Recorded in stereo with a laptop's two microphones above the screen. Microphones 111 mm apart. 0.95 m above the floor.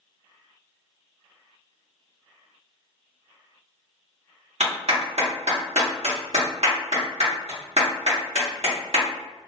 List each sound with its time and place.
4.6 s a clap: 75° right (ahead or behind), 1.2 m